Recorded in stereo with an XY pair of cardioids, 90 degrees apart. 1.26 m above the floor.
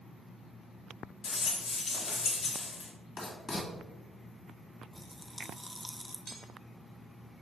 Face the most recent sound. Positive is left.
turn(degrees=-50)